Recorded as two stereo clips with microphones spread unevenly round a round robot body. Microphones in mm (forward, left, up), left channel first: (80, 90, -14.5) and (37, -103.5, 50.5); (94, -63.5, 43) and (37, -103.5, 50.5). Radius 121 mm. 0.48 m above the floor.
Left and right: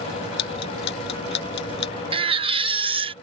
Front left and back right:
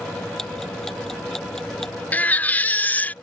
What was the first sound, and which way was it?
Ticking, 125° left.